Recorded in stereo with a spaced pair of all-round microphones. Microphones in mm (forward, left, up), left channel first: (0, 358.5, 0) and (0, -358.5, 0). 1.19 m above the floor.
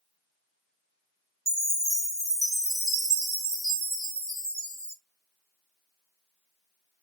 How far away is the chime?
About 2 m.